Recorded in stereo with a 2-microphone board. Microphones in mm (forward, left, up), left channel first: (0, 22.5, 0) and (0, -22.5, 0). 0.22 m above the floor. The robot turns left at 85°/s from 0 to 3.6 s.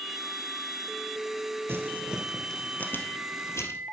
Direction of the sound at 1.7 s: 55° right (ahead or behind).